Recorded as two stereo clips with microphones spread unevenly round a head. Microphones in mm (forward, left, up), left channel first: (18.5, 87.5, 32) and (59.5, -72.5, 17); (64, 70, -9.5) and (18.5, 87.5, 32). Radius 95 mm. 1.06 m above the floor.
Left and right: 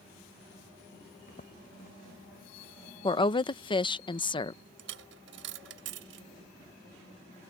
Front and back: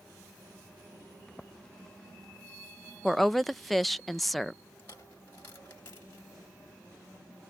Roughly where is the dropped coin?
Right.